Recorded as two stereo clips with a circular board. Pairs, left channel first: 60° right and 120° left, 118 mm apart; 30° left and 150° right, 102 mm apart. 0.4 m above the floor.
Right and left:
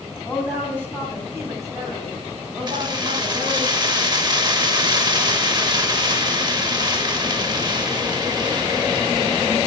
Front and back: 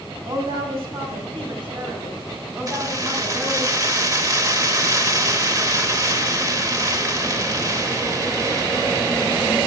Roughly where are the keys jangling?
Behind.